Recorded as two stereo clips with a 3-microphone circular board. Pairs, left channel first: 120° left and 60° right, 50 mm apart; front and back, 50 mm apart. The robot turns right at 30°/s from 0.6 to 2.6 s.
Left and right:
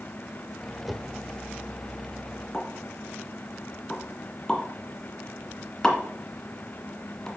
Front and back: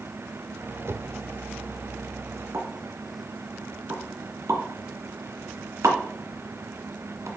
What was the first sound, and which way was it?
A whoosh, 150° right.